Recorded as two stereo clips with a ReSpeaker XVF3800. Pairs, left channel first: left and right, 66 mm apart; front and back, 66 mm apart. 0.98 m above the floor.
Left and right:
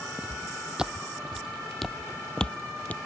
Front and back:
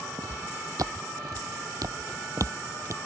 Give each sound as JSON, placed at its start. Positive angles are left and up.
{"t": 0.2, "sound": "footsteps", "azimuth_deg": -160}